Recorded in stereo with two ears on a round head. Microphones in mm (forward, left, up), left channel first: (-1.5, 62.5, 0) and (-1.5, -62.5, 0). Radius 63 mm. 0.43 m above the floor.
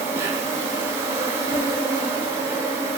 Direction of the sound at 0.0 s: 20° right (ahead or behind).